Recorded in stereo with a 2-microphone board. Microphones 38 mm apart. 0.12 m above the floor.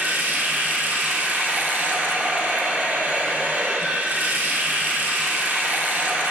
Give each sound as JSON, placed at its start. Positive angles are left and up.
{"t": 0.0, "sound": "running water", "side_deg": -55, "distance_m": 1.4}